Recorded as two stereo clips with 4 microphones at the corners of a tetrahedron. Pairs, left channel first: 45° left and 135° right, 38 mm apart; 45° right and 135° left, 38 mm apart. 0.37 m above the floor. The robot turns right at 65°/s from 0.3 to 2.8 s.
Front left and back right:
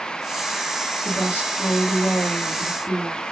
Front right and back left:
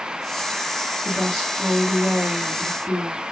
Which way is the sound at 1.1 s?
25° left.